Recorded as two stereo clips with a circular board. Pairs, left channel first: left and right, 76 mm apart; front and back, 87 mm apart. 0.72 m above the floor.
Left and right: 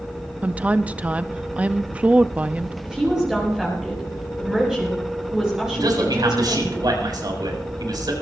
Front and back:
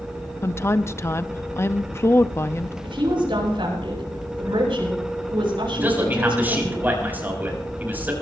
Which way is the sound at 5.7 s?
110° right.